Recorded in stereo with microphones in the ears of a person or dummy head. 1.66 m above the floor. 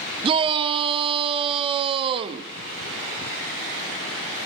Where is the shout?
25° right (ahead or behind), 0.6 m.